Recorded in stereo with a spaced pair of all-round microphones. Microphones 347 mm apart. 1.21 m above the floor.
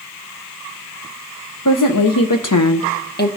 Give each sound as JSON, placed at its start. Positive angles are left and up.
{"t": 1.6, "sound": "a woman speaking", "side_deg": 55, "distance_m": 0.8}